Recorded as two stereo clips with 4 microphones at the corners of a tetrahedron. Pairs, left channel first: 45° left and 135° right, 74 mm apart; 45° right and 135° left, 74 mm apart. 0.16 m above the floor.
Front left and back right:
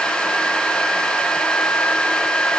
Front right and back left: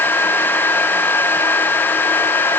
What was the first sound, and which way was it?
Only background noise.